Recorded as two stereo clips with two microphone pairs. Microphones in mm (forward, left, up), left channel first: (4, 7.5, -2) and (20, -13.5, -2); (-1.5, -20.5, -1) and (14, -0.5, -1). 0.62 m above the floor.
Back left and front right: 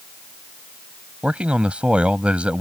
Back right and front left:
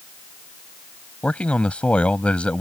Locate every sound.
1.2 s a man speaking: 95° right